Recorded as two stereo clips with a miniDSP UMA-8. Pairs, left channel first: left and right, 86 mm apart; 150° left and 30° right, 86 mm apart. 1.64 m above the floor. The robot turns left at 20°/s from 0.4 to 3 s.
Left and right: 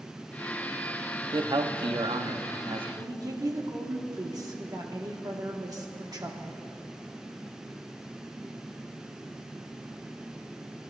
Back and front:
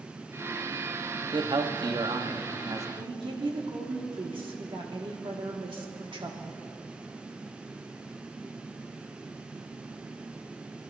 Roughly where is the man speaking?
Ahead right.